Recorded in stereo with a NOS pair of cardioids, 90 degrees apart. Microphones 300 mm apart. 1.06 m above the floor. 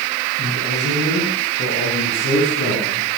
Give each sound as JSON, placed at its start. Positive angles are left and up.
{"t": 0.4, "sound": "a man speaking", "azimuth_deg": 30, "distance_m": 7.0}